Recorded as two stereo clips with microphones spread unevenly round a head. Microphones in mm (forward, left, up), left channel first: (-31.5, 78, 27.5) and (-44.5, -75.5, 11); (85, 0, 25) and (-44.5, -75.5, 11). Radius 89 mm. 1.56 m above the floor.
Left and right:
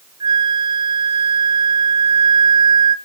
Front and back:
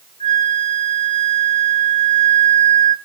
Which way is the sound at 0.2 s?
25° right.